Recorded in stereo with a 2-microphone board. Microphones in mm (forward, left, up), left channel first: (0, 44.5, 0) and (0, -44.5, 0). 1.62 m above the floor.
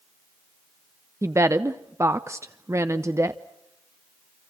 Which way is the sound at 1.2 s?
30° right (ahead or behind).